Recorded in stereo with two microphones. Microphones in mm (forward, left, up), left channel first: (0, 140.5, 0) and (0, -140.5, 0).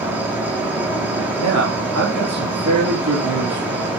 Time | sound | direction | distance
0.0 | an insect | 5° right (ahead or behind) | 1.8 m
1.4 | a man speaking | 75° right (ahead or behind) | 3 m